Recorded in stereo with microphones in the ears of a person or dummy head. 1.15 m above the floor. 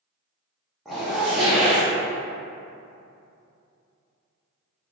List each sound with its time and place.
0.8 s a zipper: centre (ahead or behind), 0.9 m